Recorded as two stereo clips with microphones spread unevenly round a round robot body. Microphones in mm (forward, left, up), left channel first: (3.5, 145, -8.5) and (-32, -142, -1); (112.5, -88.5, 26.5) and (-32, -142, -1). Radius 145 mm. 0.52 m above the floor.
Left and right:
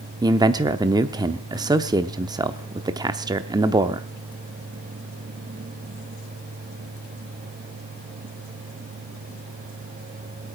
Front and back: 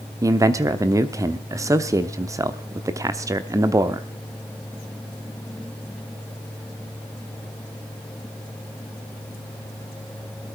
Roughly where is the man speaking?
Behind.